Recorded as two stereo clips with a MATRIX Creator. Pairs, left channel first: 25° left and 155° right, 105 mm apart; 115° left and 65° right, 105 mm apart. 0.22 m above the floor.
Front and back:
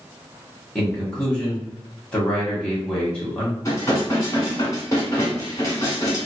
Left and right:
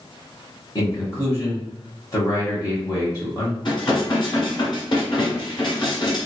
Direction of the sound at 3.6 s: 75° left.